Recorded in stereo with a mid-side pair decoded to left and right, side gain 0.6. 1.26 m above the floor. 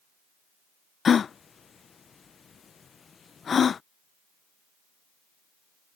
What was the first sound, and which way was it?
A gasp, 35° left.